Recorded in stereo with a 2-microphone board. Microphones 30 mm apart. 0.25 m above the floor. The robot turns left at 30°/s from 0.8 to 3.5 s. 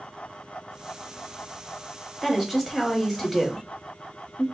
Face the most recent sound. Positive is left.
turn(degrees=5)  # may be behind; listen again after turning